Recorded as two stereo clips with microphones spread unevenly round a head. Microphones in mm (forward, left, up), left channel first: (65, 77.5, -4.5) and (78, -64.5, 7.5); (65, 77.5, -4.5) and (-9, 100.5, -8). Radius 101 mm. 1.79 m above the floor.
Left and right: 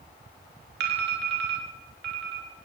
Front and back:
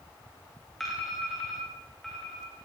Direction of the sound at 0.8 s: 105° right.